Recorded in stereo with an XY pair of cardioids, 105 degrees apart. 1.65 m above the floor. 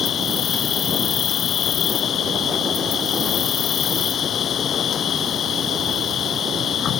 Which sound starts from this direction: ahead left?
An insect, at 0.0 s.